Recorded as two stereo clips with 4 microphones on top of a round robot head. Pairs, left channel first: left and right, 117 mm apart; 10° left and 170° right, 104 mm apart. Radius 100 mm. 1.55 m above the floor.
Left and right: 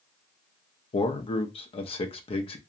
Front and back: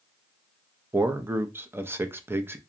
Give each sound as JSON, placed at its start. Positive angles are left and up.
{"t": 0.9, "sound": "a man speaking", "azimuth_deg": 120, "distance_m": 0.5}